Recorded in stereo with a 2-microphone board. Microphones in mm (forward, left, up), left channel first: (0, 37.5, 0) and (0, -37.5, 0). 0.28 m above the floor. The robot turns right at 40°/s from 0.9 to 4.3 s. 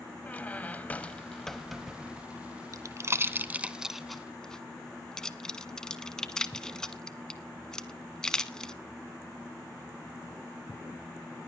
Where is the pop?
50° right (ahead or behind), 0.8 m; by 8.7 s 10° left (ahead or behind), 0.8 m.